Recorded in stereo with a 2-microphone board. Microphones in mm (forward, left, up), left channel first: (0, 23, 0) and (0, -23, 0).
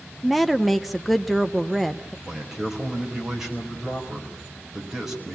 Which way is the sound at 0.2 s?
Centre (ahead or behind).